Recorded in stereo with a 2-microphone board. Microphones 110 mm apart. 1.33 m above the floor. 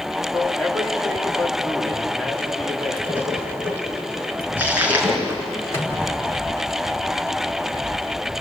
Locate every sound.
0.3 s a man speaking: centre (ahead or behind), 3.5 m
3.1 s a splash: 15° right (ahead or behind), 4 m
5.7 s a microwave: 25° left (ahead or behind), 4 m